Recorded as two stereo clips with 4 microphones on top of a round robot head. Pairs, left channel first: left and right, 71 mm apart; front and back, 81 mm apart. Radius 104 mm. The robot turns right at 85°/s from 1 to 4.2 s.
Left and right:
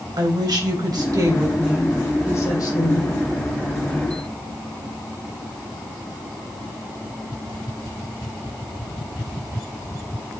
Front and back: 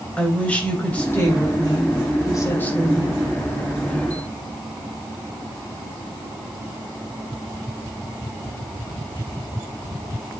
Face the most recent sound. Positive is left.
turn(degrees=-165)